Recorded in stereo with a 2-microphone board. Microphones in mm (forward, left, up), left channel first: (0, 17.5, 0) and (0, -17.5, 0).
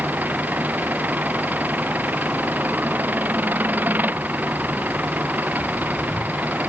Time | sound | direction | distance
0.0 | an engine running | 60° right (ahead or behind) | ?